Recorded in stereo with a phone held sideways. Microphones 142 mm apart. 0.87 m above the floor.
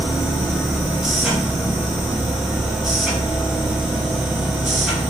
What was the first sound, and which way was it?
A machine running, 5° right (ahead or behind).